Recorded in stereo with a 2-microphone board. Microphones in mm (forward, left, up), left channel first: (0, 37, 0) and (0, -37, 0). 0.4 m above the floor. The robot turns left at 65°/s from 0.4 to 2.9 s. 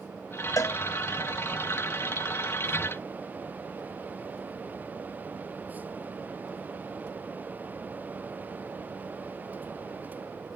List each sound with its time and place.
0.6 s a cowbell: 50° left (ahead or behind), 0.6 m; by 0.8 s 55° left (ahead or behind), 0.6 m